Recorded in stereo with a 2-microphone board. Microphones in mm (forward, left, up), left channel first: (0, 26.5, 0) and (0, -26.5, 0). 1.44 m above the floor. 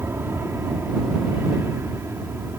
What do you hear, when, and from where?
0.0 s an aircraft: 50° right (ahead or behind)